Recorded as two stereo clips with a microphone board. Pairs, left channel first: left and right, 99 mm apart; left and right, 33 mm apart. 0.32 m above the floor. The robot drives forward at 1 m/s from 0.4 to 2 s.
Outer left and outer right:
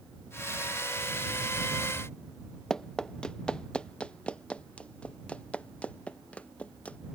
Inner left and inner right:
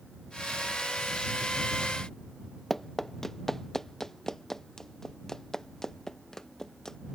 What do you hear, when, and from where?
2.7 s running footsteps: 5° left (ahead or behind); by 7.0 s 15° left (ahead or behind)